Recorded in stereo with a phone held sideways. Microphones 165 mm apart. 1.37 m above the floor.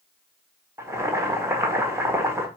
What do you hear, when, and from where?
0.8 s boiling: 15° right (ahead or behind), 1.5 m